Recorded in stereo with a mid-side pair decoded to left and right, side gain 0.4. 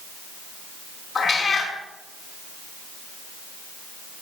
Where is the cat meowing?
45° left, 5 m.